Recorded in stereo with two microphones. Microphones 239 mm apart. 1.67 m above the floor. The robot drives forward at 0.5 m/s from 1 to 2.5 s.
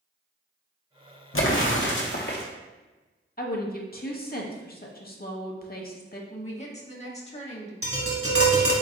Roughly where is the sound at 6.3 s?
Left.